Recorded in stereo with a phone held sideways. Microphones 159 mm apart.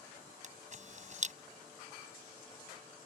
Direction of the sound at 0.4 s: 50° right (ahead or behind).